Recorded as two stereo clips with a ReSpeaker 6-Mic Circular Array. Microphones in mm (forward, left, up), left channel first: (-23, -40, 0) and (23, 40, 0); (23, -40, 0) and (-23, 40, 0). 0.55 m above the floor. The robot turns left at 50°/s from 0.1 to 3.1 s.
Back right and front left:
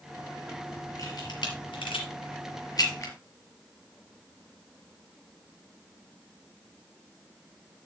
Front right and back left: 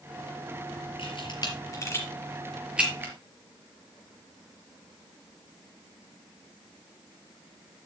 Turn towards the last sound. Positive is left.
turn(degrees=180)